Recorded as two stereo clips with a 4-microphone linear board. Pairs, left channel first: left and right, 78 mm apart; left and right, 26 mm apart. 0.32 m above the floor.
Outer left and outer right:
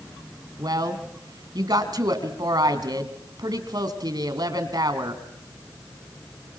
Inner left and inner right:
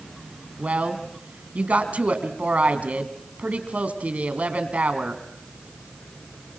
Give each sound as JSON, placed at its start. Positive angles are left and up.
{"t": 0.6, "sound": "a woman speaking", "side_deg": -60, "distance_m": 2.5}